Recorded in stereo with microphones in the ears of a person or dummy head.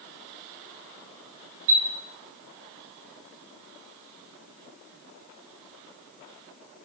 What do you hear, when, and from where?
1.7 s a chime: 70° right (ahead or behind), 1.0 m